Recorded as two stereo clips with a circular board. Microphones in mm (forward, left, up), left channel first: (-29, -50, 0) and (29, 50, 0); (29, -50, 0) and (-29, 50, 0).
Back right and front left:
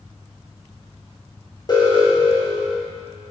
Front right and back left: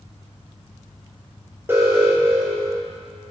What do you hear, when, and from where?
1.7 s an alarm: 170° right, 4.5 m